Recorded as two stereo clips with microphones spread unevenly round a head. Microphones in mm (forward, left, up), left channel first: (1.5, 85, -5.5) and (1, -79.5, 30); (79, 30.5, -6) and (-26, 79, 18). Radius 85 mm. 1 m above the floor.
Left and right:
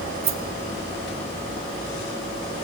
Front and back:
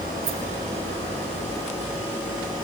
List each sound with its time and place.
0.2 s a rattle: 145° right, 1.2 m